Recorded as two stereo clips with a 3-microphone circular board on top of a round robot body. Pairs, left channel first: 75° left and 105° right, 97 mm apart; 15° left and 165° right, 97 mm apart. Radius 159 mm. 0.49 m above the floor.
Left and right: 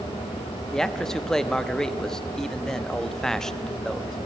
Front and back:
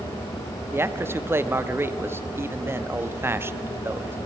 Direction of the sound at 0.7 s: 155° left.